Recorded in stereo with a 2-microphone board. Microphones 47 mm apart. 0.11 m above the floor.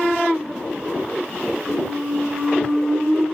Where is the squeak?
45° left (ahead or behind), 3.5 m.